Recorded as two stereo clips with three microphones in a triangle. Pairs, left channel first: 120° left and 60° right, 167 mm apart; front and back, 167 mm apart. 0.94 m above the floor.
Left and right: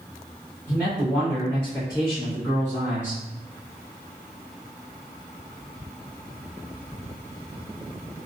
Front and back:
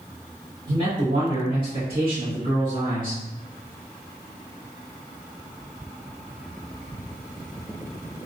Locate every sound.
0.7 s a man speaking: 130° right, 1.2 m; by 3.2 s 150° left, 1.6 m